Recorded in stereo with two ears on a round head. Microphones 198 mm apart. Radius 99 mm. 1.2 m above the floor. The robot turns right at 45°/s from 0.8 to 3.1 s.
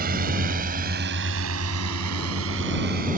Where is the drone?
45° right (ahead or behind); by 3.2 s 40° right (ahead or behind).